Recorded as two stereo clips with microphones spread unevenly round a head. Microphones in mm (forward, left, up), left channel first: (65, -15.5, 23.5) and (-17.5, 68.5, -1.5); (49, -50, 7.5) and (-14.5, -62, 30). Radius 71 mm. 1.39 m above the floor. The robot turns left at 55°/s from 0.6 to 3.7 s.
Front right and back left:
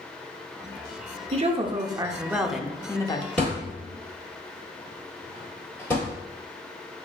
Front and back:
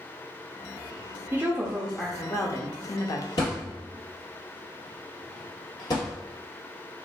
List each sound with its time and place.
1.3 s a woman speaking: 115° left, 0.6 m; by 3.3 s 10° left, 0.6 m
3.4 s a thud: 15° left, 1.7 m; by 6.1 s straight ahead, 1.7 m